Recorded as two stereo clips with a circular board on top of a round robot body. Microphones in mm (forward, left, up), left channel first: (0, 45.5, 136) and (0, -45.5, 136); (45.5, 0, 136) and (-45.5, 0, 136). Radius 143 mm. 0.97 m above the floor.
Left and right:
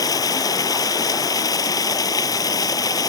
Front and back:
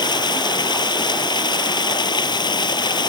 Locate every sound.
0.0 s running water: 40° left